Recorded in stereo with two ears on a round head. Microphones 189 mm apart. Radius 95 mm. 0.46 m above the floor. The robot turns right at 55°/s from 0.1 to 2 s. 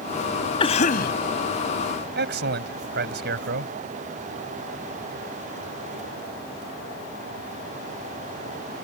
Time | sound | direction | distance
0.6 | a cough | 25° left (ahead or behind) | ?
2.1 | a man speaking | 55° right (ahead or behind) | ?